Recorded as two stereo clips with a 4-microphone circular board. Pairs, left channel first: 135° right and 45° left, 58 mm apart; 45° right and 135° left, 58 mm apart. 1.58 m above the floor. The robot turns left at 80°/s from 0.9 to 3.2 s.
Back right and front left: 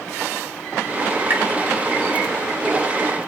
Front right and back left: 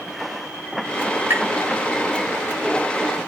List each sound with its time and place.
1.3 s tapping: 90° left, 1.1 m; by 1.4 s 80° left, 1.1 m